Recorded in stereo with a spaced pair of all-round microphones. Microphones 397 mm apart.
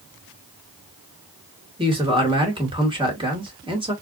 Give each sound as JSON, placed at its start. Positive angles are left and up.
{"t": 1.8, "sound": "a man speaking", "side_deg": -10, "distance_m": 2.5}